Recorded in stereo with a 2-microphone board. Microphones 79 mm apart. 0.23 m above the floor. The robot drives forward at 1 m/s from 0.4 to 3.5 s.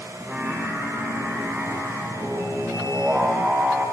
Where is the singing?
15° right (ahead or behind), 10 m; by 3.8 s 10° right (ahead or behind), 13 m.